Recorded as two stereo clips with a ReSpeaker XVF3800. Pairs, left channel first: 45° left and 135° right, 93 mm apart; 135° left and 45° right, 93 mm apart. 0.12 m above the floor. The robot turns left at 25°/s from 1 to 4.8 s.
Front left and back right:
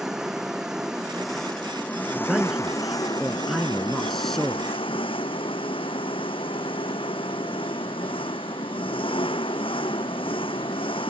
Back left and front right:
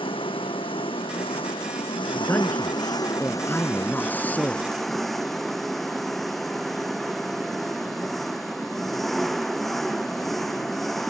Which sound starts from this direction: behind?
A man speaking, at 2.1 s.